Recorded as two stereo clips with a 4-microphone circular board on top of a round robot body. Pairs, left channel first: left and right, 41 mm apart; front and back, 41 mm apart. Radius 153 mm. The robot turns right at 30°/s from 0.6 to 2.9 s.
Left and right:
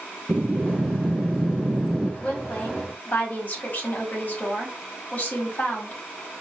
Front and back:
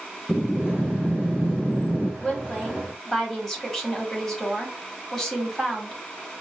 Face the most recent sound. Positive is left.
turn(degrees=85)